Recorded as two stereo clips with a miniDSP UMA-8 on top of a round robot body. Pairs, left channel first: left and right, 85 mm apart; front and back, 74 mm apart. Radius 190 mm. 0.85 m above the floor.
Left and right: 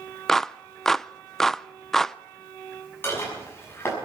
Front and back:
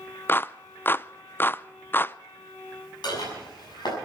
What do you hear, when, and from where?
0.3 s a clap: 10° left, 0.6 m
3.0 s dishes clattering: 25° left, 6 m